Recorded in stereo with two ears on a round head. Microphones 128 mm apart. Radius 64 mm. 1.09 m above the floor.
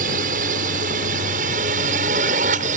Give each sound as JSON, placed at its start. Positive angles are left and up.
{"t": 0.0, "sound": "a drone", "side_deg": -60}